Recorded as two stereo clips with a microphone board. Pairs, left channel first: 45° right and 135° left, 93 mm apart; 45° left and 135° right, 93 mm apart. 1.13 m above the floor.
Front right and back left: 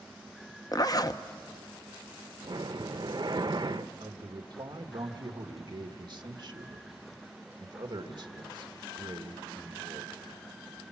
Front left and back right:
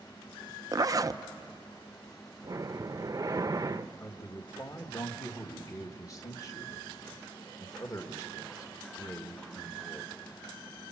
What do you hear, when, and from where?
0.7 s a zipper: 90° right, 0.5 m
2.4 s breathing: 175° left, 0.5 m
4.0 s a man speaking: 95° left, 1.6 m